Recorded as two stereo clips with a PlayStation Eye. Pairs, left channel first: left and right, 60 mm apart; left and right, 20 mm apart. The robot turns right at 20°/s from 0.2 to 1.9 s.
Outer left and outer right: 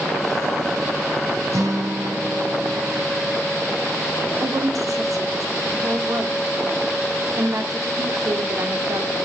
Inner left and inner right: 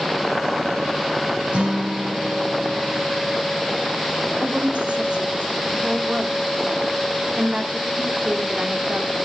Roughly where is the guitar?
Right.